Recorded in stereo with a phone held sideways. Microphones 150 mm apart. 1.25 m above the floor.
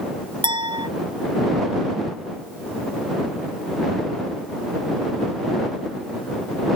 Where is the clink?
35° right (ahead or behind).